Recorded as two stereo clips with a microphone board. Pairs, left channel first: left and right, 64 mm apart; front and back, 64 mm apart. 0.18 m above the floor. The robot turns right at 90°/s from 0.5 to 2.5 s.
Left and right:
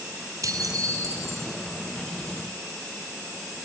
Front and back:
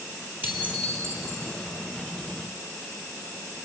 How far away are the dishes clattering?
About 3 m.